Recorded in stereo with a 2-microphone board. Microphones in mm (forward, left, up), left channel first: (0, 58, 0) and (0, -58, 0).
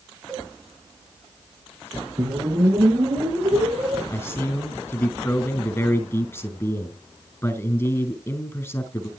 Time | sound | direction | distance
0.3 | a cowbell | 5° left (ahead or behind) | 3 m
2.2 | a whoosh | 40° right (ahead or behind) | 8 m
4.1 | a man speaking | 25° left (ahead or behind) | 5 m